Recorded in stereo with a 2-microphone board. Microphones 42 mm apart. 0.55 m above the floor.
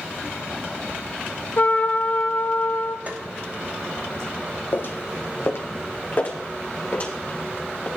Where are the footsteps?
50° left (ahead or behind), 1.1 m; by 7.9 s 35° left (ahead or behind), 4 m.